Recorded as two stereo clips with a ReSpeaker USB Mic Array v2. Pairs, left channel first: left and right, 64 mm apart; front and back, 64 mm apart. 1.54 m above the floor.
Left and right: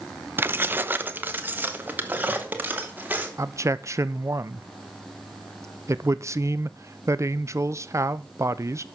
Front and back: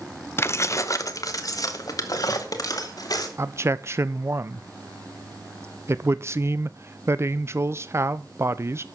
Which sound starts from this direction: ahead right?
Keys jangling, at 0.4 s.